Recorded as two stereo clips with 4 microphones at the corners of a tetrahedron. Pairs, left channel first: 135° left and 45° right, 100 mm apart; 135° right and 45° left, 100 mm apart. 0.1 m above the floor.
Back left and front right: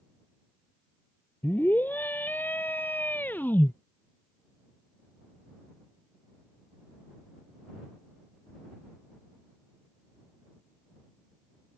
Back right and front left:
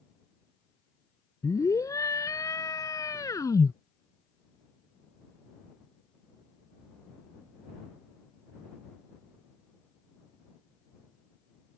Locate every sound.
1.4 s a scream: 165° right